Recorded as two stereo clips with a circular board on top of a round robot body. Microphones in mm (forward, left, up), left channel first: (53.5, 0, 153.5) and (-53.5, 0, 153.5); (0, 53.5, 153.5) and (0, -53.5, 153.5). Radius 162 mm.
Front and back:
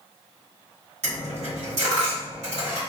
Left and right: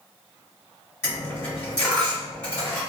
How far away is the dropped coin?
About 1.7 m.